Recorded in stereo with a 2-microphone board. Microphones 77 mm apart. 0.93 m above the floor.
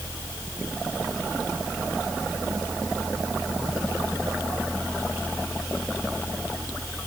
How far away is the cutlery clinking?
No cutlery clinking in this recording.